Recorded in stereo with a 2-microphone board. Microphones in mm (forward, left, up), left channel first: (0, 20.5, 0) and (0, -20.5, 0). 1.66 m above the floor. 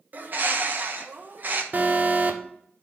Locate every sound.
0.1 s a bird: 50° right (ahead or behind), 1.1 m
1.7 s an alarm: 45° right (ahead or behind), 1.0 m